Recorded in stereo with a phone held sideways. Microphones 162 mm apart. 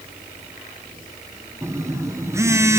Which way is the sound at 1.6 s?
20° right (ahead or behind).